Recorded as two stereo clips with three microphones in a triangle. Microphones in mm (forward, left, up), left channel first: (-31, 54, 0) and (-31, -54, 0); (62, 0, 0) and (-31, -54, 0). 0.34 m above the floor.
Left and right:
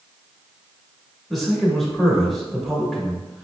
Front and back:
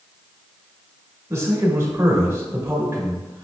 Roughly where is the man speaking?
Behind.